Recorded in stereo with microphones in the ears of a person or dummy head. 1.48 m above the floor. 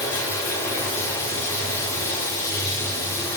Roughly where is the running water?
Centre.